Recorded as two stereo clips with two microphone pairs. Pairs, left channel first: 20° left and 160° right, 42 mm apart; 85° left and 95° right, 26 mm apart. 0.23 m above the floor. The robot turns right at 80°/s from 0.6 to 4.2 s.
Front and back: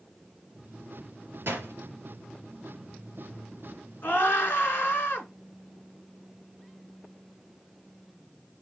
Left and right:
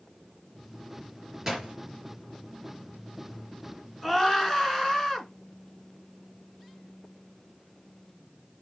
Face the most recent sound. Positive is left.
turn(degrees=10)